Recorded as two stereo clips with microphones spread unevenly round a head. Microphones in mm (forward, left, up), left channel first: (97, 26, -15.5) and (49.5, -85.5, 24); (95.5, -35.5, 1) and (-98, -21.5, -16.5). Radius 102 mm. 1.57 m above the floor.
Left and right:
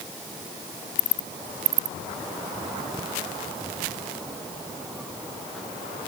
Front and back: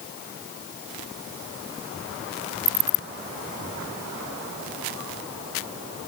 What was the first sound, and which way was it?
Only background noise.